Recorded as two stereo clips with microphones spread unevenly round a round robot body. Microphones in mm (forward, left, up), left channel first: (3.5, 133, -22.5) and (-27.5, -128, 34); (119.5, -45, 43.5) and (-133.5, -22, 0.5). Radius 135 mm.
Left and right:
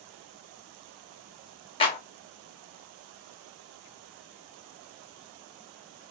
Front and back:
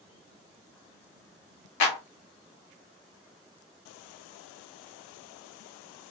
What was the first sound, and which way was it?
A clap, 20° left.